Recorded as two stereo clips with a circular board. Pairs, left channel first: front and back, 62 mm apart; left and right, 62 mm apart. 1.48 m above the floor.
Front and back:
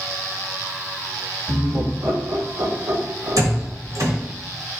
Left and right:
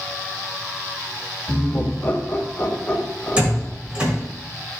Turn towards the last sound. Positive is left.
turn(degrees=-160)